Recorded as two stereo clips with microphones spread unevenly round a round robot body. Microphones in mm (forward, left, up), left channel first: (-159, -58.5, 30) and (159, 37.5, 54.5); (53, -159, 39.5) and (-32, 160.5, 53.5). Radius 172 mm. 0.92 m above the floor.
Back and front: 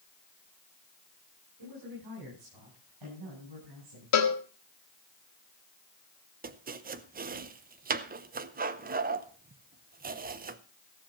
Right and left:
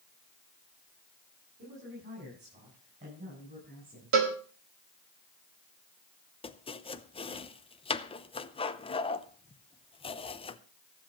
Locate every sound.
1.6 s a man speaking: 50° left, 9.5 m; by 4.2 s 40° left, 10.5 m
4.1 s a cowbell: 160° left, 1.8 m
6.4 s chopping: 25° right, 0.8 m